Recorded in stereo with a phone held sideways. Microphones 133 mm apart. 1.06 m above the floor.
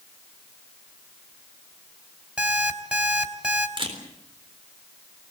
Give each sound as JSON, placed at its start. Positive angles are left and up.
{"t": 2.4, "sound": "an alarm clock", "side_deg": -10, "distance_m": 3.0}
{"t": 3.8, "sound": "a camera shutter", "side_deg": -40, "distance_m": 4.0}